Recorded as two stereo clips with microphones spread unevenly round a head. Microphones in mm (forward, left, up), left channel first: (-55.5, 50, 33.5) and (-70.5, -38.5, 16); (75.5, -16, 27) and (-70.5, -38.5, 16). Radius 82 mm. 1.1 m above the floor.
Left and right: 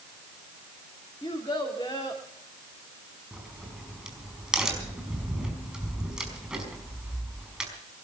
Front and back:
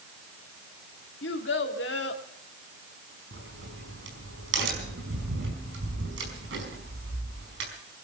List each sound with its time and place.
1.2 s a child speaking: 15° left, 2 m
3.3 s a crack: 175° left, 5 m